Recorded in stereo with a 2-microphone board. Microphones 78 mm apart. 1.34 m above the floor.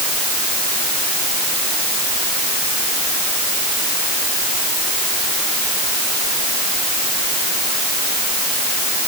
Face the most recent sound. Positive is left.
No sound to turn to.